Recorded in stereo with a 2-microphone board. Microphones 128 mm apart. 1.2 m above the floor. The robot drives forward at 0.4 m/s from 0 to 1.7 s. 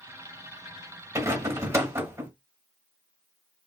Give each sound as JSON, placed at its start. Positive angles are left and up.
{"t": 1.1, "sound": "a rattle", "side_deg": -25, "distance_m": 1.1}